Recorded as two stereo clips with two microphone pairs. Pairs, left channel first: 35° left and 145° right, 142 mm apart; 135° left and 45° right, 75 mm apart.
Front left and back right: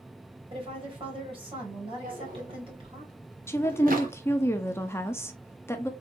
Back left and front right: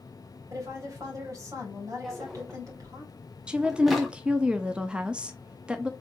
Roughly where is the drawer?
Behind right.